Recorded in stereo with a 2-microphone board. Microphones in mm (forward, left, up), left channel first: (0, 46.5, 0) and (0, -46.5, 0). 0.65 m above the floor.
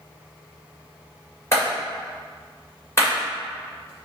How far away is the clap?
About 1.9 m.